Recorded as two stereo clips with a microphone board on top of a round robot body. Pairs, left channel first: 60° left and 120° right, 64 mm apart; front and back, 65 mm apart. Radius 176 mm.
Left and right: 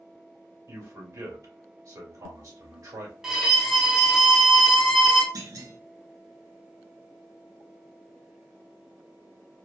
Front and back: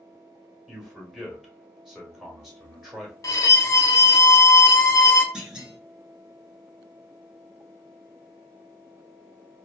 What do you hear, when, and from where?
0.7 s a man speaking: 95° right, 1.8 m
3.2 s a violin: 35° right, 0.7 m
5.3 s a clunk: 105° right, 1.0 m